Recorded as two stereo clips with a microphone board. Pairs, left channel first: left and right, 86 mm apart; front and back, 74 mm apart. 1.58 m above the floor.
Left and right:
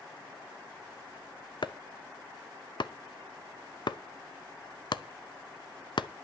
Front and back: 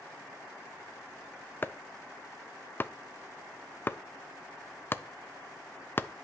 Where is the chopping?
60° left, 0.6 m.